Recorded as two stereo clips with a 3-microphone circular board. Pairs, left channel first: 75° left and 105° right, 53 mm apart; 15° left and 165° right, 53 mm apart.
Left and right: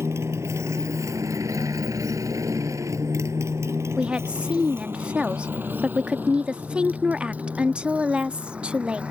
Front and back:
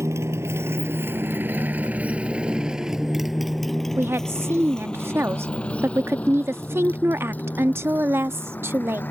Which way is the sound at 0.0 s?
140° right.